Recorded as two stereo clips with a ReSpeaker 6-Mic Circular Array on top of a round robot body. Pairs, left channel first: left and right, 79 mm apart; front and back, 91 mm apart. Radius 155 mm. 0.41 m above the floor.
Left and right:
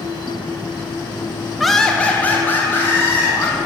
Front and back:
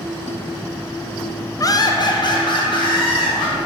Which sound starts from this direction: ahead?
Laughter, at 1.6 s.